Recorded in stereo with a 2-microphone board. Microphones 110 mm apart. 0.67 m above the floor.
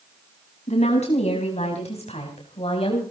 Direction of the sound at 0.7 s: 80° left.